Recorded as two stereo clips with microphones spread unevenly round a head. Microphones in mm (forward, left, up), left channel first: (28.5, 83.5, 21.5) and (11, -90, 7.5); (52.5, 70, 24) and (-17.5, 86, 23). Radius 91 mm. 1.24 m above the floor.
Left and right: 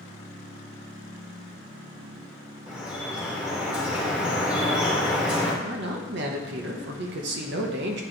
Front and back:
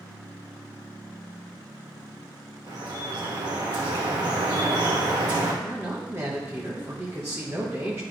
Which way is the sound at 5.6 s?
125° right.